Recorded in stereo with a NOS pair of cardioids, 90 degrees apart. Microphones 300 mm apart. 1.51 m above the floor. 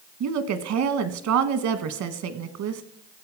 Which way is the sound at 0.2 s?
70° right.